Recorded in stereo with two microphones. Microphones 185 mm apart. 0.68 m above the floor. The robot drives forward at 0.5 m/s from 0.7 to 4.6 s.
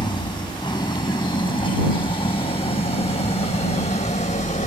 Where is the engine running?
25° left (ahead or behind); by 4.7 s 45° left (ahead or behind).